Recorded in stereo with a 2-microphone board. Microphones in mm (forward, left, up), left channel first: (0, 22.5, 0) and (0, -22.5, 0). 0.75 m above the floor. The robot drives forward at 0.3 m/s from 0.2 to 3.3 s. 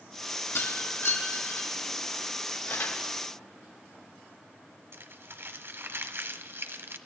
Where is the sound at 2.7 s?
75° left (ahead or behind), 4 m; by 3.0 s 70° left (ahead or behind), 4 m.